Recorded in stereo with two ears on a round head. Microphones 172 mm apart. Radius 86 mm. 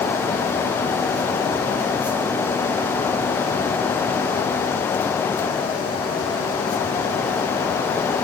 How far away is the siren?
I don't hear a siren.